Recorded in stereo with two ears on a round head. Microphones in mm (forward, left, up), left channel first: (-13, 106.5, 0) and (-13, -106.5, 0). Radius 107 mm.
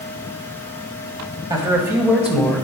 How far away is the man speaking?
About 2 m.